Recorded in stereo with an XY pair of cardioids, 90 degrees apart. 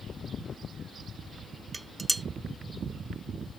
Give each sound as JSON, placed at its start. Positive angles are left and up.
{"t": 1.7, "sound": "dishes clattering", "azimuth_deg": -20, "distance_m": 0.5}